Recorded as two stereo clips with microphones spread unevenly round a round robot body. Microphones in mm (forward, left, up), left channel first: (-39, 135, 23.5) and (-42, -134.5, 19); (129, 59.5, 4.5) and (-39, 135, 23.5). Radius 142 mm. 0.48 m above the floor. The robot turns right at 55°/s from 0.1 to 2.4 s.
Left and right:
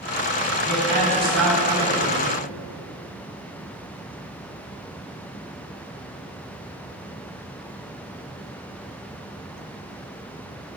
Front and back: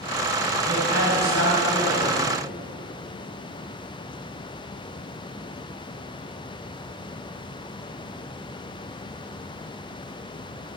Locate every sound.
0.7 s a woman speaking: 95° right, 3 m; by 2.2 s 15° right, 3 m